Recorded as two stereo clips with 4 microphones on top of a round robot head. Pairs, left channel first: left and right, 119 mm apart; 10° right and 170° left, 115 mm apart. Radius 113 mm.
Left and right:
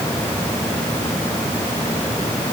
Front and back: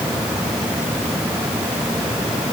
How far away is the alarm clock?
I don't hear an alarm clock.